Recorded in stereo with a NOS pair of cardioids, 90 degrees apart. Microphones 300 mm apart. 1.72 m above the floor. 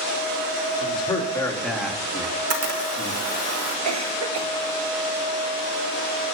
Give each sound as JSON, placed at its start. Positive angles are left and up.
{"t": 0.8, "sound": "a man speaking", "azimuth_deg": 20, "distance_m": 4.5}
{"t": 2.2, "sound": "a camera shutter", "azimuth_deg": -55, "distance_m": 2.5}
{"t": 3.9, "sound": "a cough", "azimuth_deg": -65, "distance_m": 1.5}